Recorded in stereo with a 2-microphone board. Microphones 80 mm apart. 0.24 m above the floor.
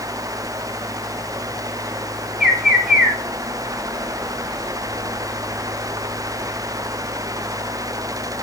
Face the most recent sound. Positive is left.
turn(degrees=-5)  # may be behind; listen again after turning